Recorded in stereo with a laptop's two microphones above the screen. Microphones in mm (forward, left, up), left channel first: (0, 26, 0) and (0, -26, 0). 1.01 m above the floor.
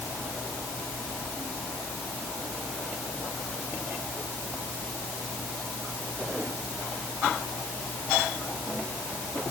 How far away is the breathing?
No breathing in this recording.